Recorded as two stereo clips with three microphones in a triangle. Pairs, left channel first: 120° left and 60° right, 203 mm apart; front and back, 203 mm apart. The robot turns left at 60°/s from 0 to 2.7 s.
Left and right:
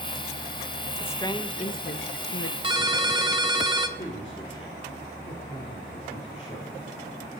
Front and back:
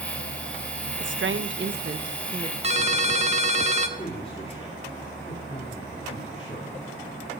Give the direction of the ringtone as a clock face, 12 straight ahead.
4 o'clock.